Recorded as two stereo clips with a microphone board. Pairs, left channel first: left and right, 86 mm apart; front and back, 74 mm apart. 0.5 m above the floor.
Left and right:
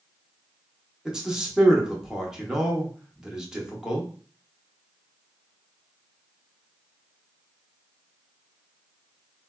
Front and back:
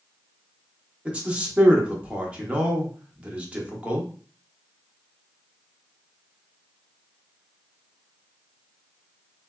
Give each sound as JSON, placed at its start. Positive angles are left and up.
{"t": 1.1, "sound": "a man speaking", "azimuth_deg": -155, "distance_m": 0.7}